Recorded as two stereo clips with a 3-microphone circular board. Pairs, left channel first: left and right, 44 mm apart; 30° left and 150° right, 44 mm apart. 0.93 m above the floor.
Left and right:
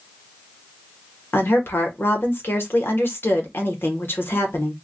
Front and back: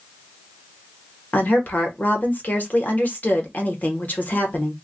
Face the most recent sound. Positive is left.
turn(degrees=75)